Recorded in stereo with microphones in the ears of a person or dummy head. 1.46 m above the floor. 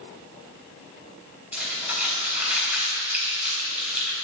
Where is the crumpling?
10° right (ahead or behind), 4 m.